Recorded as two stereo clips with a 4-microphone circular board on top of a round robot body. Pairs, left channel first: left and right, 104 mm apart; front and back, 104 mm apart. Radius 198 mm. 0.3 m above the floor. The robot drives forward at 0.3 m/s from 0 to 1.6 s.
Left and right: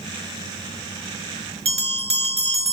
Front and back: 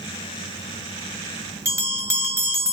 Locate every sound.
1.6 s a bell: 115° right, 0.7 m